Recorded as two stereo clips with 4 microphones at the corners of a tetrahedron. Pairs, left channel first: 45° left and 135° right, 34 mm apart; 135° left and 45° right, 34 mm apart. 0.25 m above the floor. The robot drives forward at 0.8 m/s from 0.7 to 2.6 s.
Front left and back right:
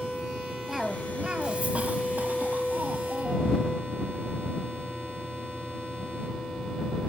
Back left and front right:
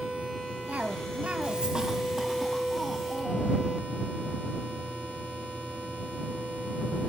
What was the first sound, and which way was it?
A cough, 60° right.